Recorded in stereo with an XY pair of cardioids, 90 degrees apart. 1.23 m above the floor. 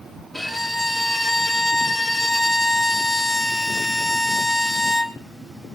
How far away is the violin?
About 2.5 m.